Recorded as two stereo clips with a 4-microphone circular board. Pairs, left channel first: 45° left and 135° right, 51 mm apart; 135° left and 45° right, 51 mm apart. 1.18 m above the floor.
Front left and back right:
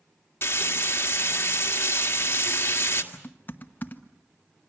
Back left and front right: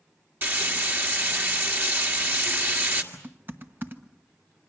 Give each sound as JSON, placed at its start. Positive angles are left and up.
{"t": 0.4, "sound": "frying", "azimuth_deg": 0, "distance_m": 1.8}
{"t": 3.1, "sound": "typing on a keyboard", "azimuth_deg": -5, "distance_m": 1.1}